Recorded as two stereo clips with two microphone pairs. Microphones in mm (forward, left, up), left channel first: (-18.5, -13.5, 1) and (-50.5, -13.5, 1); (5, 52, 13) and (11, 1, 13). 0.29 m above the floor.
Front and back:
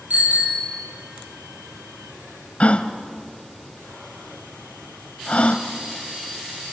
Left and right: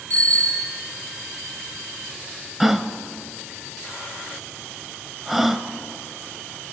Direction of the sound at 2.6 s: 5° left.